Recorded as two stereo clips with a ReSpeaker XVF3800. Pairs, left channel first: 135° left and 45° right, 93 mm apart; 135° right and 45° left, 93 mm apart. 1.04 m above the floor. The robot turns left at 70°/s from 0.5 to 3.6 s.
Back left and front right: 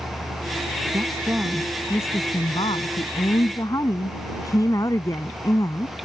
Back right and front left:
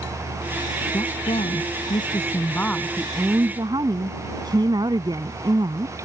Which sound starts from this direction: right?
A woman speaking, at 0.9 s.